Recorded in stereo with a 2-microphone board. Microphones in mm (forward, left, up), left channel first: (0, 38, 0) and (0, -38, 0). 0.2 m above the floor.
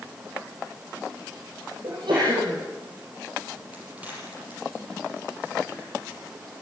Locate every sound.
1.8 s a sneeze: 75° right (ahead or behind), 8.5 m
3.7 s a crack: 20° right (ahead or behind), 6 m